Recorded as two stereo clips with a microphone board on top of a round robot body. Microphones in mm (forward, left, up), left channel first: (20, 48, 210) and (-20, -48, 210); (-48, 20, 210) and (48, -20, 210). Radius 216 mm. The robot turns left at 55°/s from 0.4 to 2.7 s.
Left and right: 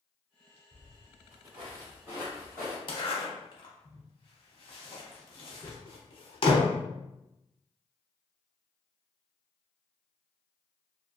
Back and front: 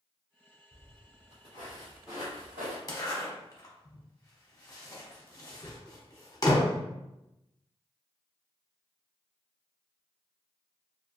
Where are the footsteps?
160° right, 0.9 m; by 2.8 s 10° right, 1.7 m.